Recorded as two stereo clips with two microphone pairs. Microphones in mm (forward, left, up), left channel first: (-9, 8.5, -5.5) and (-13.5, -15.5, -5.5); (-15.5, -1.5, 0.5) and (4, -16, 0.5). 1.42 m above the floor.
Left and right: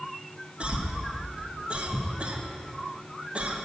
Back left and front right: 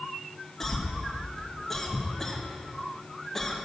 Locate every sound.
0.6 s a cough: 145° right, 1.3 m